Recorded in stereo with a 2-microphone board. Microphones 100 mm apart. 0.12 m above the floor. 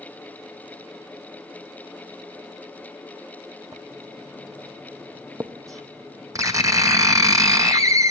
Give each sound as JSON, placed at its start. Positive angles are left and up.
{"t": 3.7, "sound": "writing", "side_deg": -35, "distance_m": 0.9}